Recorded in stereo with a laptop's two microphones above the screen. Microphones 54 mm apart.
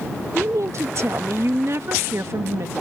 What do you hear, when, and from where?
0.3 s a woman speaking: 60° right (ahead or behind)